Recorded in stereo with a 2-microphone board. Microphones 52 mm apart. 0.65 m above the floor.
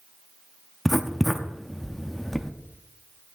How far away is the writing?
About 0.7 m.